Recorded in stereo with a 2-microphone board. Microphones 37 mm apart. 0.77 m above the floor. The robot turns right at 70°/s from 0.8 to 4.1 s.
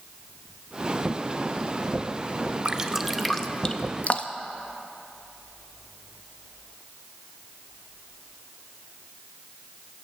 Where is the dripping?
30° right (ahead or behind), 0.5 m; by 4.5 s 40° left (ahead or behind), 0.5 m.